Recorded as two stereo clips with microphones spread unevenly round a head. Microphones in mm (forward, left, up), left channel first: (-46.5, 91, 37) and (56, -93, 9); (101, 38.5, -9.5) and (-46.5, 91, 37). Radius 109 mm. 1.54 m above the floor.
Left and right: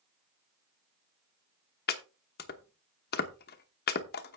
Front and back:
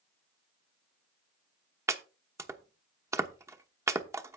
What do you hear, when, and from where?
1.9 s chopping: 110° left, 1.0 m